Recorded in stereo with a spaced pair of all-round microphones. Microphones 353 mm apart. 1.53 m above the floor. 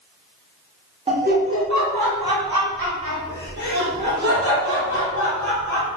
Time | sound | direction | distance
1.1 | laughter | 20° right (ahead or behind) | 1.0 m